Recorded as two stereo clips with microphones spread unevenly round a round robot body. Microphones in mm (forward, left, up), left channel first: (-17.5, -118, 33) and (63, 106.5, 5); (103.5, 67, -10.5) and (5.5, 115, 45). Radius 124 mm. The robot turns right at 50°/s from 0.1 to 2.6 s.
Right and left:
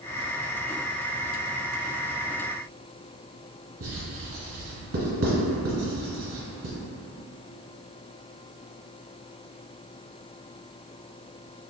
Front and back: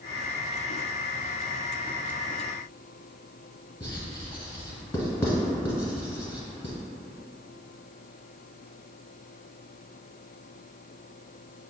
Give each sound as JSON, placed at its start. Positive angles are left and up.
{"t": 3.8, "sound": "writing", "azimuth_deg": 40, "distance_m": 1.2}